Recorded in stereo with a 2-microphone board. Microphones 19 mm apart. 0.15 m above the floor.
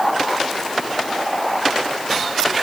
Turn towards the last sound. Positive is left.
No sound to turn to.